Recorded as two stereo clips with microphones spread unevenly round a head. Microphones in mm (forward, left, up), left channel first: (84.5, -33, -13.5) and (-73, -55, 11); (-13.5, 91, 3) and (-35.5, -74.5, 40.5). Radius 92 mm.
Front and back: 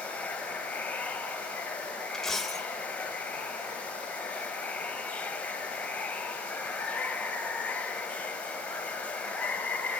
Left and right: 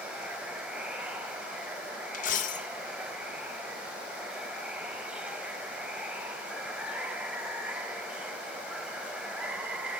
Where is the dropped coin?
110° left, 0.7 m.